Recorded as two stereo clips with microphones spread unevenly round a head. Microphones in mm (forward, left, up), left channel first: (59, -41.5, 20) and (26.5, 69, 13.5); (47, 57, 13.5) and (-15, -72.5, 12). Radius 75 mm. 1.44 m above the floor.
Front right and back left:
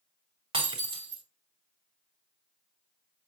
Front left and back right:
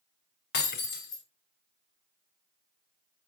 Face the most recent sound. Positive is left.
turn(degrees=70)